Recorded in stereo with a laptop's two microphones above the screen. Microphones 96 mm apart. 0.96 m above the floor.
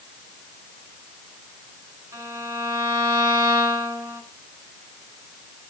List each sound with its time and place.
2.1 s a violin: 30° right (ahead or behind), 6 m